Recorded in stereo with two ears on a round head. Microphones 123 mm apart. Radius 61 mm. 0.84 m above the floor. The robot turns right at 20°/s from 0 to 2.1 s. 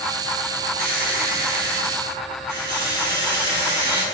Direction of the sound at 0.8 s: 65° right (ahead or behind).